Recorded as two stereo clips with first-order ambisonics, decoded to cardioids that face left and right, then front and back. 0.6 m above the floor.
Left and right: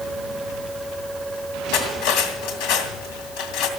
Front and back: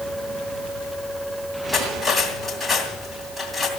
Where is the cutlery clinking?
90° left, 2.5 m.